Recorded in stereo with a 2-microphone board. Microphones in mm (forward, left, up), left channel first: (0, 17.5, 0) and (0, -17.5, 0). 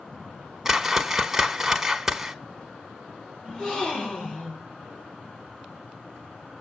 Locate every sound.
0.7 s a whoosh: 10° right (ahead or behind), 1.2 m
3.4 s a gasp: 25° left (ahead or behind), 5.5 m